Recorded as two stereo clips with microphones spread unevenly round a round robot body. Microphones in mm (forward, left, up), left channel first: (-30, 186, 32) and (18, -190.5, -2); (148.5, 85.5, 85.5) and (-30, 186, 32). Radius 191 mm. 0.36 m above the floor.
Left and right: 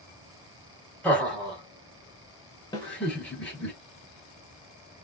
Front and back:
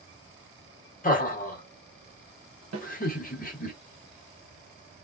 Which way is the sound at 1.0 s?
5° left.